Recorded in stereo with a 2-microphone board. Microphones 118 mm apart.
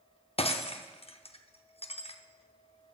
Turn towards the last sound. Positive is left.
turn(degrees=55)  # may be behind; listen again after turning